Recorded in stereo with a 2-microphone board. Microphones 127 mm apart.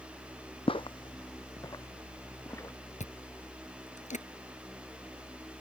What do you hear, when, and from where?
0.7 s footsteps: 45° left (ahead or behind); by 2.8 s 20° left (ahead or behind)
3.0 s chewing: 70° left (ahead or behind)